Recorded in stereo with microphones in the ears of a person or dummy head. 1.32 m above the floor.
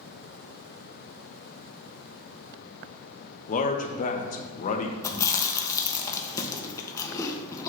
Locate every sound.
3.5 s a man speaking: 45° left (ahead or behind), 0.8 m
5.0 s chewing: 20° left (ahead or behind), 0.7 m